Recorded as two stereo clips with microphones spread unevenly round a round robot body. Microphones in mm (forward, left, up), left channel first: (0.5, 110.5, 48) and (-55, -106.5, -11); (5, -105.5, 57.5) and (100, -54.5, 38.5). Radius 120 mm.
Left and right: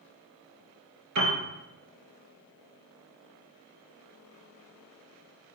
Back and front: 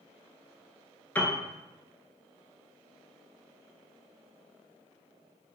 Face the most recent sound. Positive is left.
turn(degrees=-80)